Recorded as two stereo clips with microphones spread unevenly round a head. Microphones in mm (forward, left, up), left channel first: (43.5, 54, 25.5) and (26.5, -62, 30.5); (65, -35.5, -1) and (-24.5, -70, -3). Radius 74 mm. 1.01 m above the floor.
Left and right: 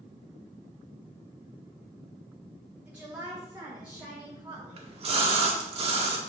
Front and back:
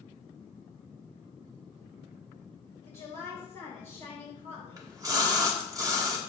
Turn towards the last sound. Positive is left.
turn(degrees=-115)